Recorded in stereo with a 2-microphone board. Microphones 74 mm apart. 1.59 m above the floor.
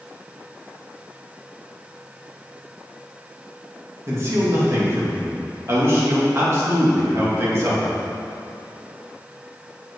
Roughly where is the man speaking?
Right.